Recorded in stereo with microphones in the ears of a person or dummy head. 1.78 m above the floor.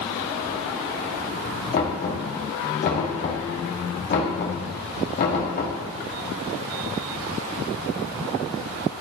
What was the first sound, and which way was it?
Knocking, 50° left (ahead or behind).